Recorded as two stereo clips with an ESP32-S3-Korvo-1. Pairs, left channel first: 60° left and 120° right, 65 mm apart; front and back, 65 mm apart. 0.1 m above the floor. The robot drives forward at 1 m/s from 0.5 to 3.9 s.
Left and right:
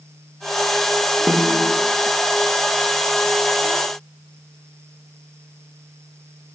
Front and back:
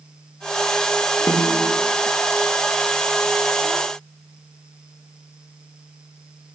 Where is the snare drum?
55° right, 6.5 m; by 1.8 s 60° right, 6.5 m.